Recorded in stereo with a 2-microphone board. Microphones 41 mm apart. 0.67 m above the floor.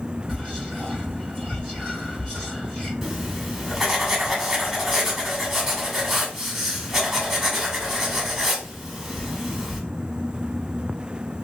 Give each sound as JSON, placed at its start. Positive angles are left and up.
{"t": 0.3, "sound": "whispering", "side_deg": 15, "distance_m": 2.5}
{"t": 3.0, "sound": "writing", "side_deg": -10, "distance_m": 1.3}